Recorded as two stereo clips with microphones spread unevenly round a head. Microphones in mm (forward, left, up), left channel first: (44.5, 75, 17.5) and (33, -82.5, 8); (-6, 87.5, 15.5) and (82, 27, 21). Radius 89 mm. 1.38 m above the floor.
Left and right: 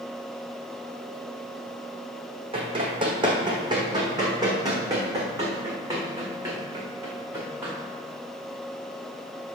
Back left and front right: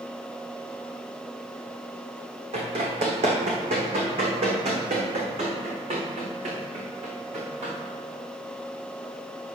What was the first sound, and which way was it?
Running footsteps, 40° right.